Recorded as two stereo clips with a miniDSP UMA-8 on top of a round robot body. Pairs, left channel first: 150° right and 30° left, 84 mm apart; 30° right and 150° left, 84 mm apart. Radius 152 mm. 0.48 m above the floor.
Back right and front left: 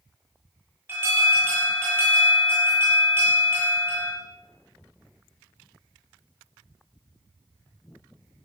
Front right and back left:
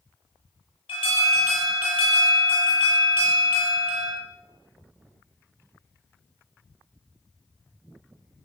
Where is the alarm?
35° right, 8.5 m.